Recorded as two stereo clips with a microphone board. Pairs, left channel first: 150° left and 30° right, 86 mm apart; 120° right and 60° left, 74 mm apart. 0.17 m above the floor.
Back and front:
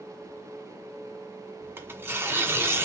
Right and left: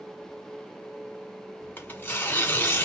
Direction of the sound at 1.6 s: 75° right.